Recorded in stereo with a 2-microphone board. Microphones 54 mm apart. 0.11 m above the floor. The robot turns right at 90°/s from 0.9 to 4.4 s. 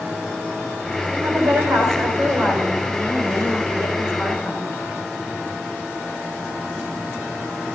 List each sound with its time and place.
1.1 s a woman speaking: 145° right, 6.5 m; by 4.7 s 150° left, 6.5 m